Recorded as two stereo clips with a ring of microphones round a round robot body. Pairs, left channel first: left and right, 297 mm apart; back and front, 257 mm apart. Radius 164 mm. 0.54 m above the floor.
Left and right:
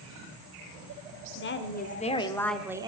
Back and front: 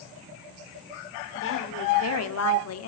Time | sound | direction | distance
1.4 | a woman speaking | 140° left | 1.8 m